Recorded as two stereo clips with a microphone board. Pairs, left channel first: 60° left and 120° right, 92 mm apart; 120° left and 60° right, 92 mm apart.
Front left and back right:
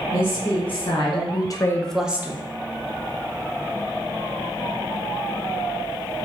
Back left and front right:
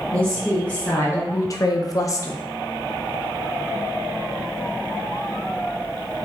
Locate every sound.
0.1 s a woman speaking: 40° left, 1.6 m; by 2.4 s straight behind, 0.8 m